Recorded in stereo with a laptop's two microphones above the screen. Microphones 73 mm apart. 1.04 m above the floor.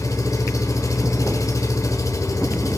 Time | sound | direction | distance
0.0 | an engine running | 50° left (ahead or behind) | 1.0 m